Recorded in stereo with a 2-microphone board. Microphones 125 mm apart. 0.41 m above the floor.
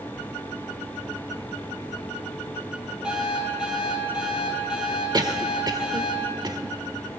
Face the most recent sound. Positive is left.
turn(degrees=-35)  # may be behind; listen again after turning